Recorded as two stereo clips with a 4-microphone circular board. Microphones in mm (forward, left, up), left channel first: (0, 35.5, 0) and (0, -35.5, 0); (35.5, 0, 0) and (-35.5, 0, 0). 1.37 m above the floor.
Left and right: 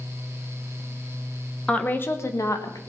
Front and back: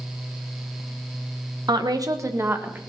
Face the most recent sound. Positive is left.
turn(degrees=120)